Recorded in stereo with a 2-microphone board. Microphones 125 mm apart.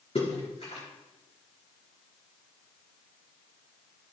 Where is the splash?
60° left (ahead or behind), 5 m.